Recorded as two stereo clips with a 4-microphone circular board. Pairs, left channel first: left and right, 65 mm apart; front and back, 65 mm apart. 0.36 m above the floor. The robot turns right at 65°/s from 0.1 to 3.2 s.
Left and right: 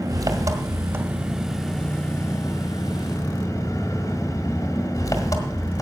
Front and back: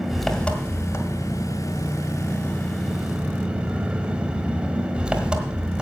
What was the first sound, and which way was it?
An engine running, 95° right.